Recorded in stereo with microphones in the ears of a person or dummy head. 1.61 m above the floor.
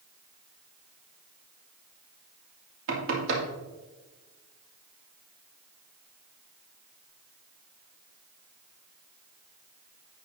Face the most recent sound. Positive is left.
turn(degrees=-60)  # may be behind; listen again after turning